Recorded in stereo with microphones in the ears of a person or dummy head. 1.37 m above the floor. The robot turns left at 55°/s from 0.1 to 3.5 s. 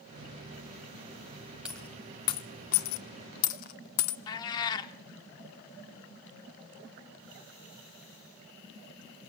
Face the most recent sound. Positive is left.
turn(degrees=25)  # may be behind; listen again after turning